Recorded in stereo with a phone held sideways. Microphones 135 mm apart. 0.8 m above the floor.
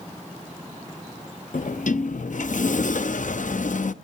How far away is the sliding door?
About 0.6 m.